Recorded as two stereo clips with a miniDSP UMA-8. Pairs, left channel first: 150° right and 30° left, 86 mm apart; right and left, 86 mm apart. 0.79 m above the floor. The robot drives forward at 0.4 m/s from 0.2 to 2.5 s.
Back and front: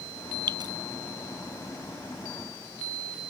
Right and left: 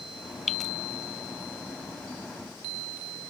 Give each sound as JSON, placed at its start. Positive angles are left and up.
{"t": 0.5, "sound": "dripping", "azimuth_deg": -5}